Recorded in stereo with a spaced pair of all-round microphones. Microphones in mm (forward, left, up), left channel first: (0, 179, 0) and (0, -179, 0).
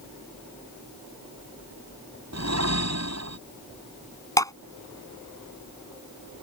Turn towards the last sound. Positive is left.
turn(degrees=10)  # may be behind; listen again after turning